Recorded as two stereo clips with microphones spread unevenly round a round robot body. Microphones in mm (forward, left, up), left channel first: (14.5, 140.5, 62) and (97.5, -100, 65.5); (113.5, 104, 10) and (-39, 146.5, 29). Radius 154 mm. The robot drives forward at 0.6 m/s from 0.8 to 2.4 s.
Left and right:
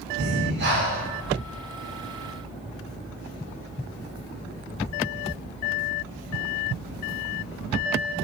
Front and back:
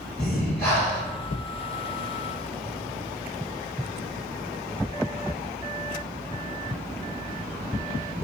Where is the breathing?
100° right, 0.6 m; by 1.1 s 120° right, 0.6 m.